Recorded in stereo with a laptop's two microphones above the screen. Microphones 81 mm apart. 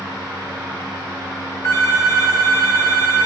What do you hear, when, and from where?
0.0 s a fan: 65° right (ahead or behind), 2.5 m
1.6 s a phone ringing: 35° left (ahead or behind), 0.8 m